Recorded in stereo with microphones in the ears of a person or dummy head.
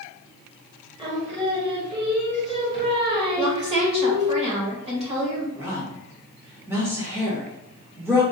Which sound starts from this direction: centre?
A woman speaking, at 5.5 s.